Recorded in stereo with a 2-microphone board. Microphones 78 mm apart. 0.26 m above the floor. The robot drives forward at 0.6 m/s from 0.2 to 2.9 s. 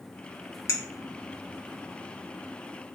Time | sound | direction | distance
0.7 | a clink | 35° left (ahead or behind) | 0.7 m